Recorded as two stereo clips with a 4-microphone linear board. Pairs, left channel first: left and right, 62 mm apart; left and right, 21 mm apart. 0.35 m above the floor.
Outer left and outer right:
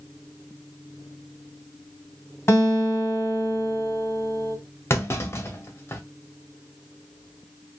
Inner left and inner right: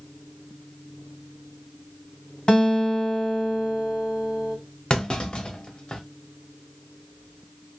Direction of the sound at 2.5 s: 45° left (ahead or behind).